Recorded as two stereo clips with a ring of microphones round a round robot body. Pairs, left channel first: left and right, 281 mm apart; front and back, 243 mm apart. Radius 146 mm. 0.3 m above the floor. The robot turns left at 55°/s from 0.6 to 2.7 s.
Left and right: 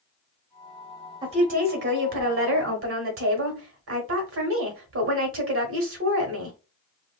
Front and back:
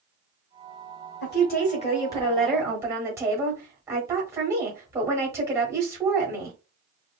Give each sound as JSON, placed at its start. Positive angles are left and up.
{"t": 1.2, "sound": "a woman speaking", "azimuth_deg": -20, "distance_m": 1.2}